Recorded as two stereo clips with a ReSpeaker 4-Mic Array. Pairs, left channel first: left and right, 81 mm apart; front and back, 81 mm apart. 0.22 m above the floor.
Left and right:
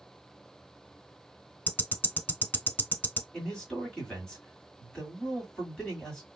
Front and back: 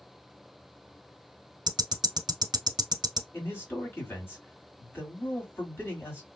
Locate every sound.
1.7 s ticking: 155° left, 0.6 m
3.3 s a man speaking: 20° left, 1.8 m